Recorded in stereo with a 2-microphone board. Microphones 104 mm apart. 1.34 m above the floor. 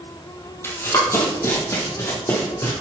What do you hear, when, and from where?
0.6 s running footsteps: 25° left (ahead or behind), 2 m; by 2.7 s 30° left (ahead or behind), 3 m